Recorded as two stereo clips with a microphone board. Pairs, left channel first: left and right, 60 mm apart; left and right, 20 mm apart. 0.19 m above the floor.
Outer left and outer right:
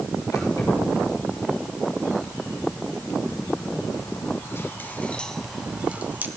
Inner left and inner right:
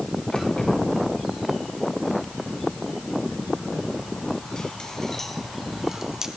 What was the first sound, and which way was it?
Keys jangling, 80° left.